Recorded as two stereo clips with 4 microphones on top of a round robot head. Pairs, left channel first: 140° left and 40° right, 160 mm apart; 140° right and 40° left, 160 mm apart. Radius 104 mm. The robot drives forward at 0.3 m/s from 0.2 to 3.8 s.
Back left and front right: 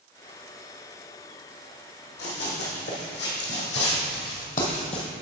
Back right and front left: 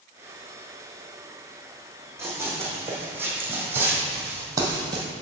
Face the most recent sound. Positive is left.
turn(degrees=90)